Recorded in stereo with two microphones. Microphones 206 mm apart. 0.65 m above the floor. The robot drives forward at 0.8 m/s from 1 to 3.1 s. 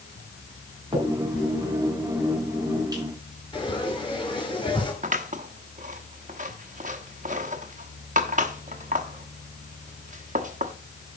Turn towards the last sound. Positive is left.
turn(degrees=-40)  # may be behind; listen again after turning